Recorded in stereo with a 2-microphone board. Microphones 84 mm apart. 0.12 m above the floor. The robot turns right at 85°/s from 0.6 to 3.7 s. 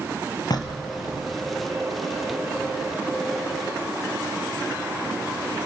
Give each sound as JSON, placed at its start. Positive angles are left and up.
{"t": 0.5, "sound": "knocking", "azimuth_deg": 65, "distance_m": 1.9}